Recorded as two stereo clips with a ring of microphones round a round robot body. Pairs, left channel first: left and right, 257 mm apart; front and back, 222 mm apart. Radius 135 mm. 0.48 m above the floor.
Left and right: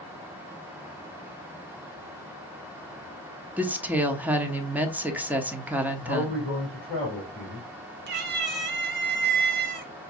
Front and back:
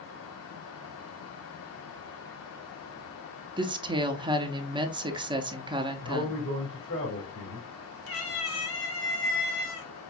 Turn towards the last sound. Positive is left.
turn(degrees=-40)